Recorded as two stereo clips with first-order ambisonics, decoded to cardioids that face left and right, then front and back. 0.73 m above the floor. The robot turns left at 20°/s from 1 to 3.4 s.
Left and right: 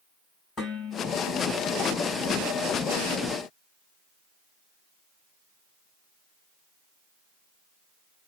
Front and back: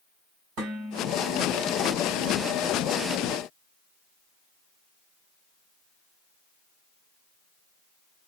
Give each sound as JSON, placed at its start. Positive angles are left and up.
{"t": 0.6, "sound": "dishes clattering", "azimuth_deg": 160, "distance_m": 4.0}